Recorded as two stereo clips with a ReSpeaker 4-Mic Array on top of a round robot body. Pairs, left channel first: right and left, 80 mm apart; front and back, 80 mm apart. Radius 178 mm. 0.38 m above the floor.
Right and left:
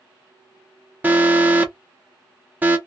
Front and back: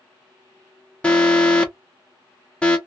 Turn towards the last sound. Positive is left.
turn(degrees=60)